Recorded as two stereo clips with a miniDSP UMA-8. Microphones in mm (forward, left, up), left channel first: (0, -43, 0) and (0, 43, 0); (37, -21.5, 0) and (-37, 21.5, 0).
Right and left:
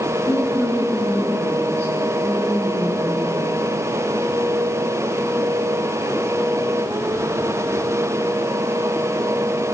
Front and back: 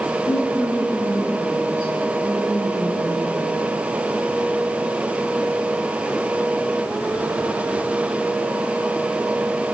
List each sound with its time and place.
0.3 s a woman speaking: 155° left, 3 m